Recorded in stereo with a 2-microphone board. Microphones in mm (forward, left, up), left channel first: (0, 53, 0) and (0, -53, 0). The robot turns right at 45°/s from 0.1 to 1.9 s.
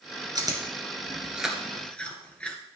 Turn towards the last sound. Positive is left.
turn(degrees=10)  # may be behind; listen again after turning